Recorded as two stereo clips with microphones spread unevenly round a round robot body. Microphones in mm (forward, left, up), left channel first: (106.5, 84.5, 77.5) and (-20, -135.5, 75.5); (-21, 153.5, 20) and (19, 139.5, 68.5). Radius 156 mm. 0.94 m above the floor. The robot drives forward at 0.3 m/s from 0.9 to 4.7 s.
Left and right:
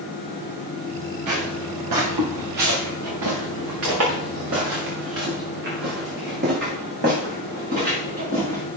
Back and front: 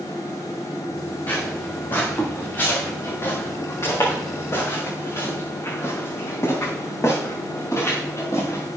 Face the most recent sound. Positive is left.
turn(degrees=175)